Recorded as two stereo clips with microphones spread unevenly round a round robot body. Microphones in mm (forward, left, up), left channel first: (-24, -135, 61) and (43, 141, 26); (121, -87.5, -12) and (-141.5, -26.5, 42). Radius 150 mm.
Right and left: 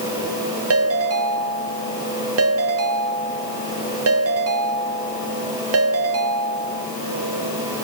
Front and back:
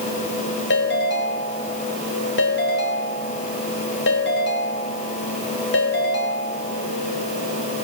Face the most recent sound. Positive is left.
turn(degrees=40)